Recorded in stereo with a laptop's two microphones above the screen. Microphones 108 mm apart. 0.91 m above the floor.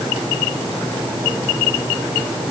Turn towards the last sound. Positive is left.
No sound to turn to.